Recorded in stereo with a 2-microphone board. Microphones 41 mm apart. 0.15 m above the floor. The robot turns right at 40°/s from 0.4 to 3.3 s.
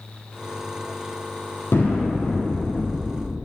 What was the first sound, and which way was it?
An explosion, 80° left.